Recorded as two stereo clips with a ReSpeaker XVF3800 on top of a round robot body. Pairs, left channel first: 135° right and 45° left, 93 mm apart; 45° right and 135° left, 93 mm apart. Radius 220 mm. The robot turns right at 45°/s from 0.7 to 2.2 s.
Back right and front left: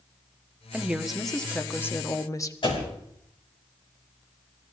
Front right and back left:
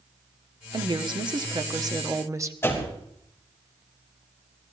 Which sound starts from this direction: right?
A door slam, at 2.6 s.